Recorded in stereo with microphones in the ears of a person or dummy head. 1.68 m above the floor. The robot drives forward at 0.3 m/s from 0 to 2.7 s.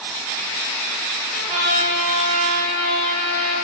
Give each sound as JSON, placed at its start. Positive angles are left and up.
{"t": 1.3, "sound": "a trumpet", "side_deg": -40, "distance_m": 3.0}